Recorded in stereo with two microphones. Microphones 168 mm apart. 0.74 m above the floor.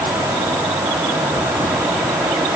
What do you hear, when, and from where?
Only background noise.